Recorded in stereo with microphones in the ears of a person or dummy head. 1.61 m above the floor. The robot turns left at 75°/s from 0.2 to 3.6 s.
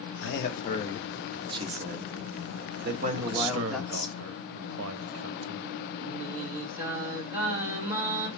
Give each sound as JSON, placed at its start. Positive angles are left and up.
{"t": 0.2, "sound": "a man speaking", "side_deg": 75, "distance_m": 1.0}
{"t": 3.2, "sound": "a man speaking", "azimuth_deg": -45, "distance_m": 0.8}
{"t": 6.0, "sound": "singing", "side_deg": -10, "distance_m": 2.5}